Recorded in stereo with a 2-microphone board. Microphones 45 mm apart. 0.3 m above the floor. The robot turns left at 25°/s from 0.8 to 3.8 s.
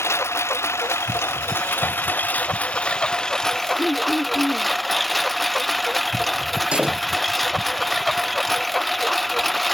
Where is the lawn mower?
80° left; by 9.7 s 5° left.